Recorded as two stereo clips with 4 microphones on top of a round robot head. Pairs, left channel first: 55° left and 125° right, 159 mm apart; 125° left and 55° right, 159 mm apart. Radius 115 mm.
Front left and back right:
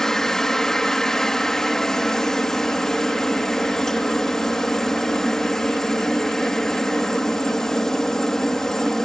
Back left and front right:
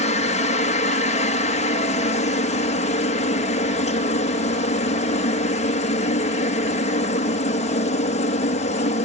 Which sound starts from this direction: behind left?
A helicopter, at 0.0 s.